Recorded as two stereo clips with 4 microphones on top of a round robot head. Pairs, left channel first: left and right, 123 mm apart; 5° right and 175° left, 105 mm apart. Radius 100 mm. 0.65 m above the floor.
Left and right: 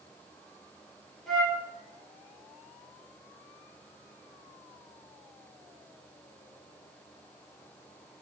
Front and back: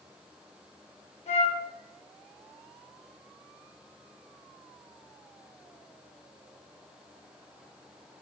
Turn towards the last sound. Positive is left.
turn(degrees=0)